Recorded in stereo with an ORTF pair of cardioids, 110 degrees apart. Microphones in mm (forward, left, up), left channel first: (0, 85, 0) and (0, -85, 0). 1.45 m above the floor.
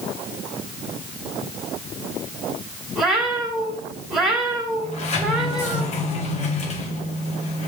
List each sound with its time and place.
3.0 s a cat meowing: 5° right, 2.5 m
4.8 s a sliding door: 40° left, 1.6 m